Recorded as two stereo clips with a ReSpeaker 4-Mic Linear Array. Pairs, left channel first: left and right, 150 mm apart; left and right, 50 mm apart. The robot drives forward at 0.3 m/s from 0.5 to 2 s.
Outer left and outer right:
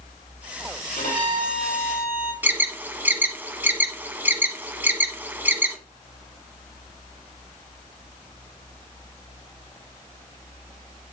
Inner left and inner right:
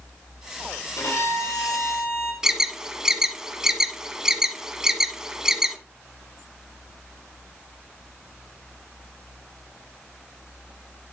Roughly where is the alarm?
Centre.